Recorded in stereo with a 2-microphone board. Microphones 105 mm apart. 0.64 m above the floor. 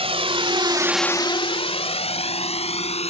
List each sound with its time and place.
0.0 s a drone: 70° right (ahead or behind); by 3.1 s 75° left (ahead or behind)